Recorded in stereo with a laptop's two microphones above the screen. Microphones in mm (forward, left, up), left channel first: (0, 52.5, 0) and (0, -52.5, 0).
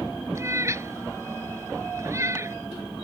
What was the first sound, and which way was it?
A cat meowing, 30° right (ahead or behind).